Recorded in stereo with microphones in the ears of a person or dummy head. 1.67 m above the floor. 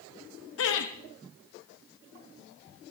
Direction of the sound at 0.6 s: 75° left (ahead or behind).